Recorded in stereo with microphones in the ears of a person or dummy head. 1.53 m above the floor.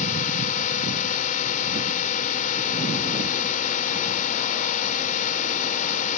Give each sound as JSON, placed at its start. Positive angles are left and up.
{"t": 0.0, "sound": "a drone", "side_deg": 50}